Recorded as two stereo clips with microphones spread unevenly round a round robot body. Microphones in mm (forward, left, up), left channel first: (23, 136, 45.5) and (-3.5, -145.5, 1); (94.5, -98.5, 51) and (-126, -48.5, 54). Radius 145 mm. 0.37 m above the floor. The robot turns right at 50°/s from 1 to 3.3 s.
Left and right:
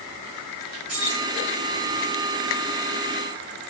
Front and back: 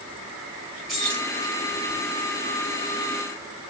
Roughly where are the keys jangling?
Right.